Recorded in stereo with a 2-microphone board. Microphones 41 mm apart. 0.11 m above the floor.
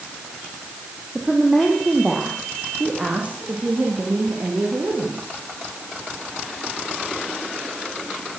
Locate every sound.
1.1 s a woman speaking: centre (ahead or behind), 5.5 m; by 5.3 s 50° right (ahead or behind), 8.5 m